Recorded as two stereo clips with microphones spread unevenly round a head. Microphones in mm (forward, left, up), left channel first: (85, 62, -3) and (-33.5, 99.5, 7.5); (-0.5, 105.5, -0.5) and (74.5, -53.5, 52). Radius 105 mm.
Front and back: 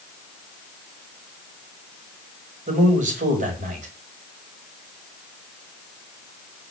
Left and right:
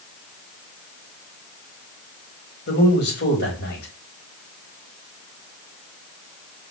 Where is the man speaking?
150° left, 4 m.